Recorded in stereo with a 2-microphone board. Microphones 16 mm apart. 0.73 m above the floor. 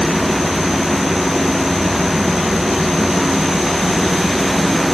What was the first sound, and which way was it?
Only background noise.